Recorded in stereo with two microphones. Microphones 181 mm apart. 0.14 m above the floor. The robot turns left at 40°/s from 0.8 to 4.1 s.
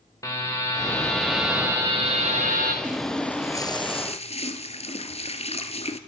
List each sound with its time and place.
0.2 s a buzzer: 20° left, 4 m; by 2.7 s 60° right, 4 m
2.8 s a running tap: 175° right, 1.6 m; by 6.0 s 135° left, 1.6 m